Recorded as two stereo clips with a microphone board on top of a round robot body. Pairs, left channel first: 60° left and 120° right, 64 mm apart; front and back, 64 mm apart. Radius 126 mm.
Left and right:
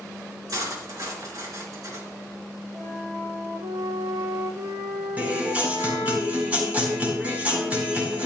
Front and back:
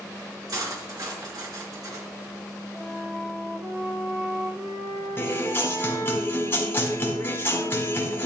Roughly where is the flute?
Behind right.